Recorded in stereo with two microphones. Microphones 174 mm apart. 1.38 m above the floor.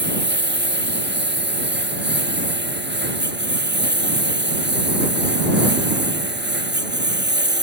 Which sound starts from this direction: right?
A lawn mower, at 0.0 s.